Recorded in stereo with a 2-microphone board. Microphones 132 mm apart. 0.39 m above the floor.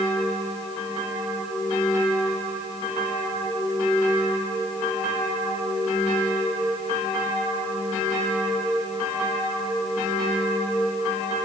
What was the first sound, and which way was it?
Only background noise.